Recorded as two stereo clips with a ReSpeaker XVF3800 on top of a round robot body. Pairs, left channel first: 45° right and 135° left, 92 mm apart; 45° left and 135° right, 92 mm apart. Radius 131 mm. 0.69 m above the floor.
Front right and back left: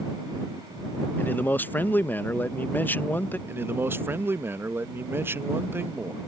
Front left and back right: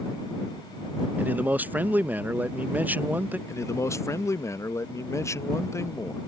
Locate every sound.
1.2 s a man speaking: 85° right
3.5 s a man speaking: 85° left